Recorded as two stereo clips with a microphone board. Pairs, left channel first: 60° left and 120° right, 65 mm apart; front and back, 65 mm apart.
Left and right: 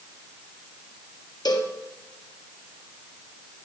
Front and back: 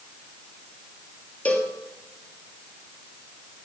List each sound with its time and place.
1.4 s a cowbell: 70° left, 2.0 m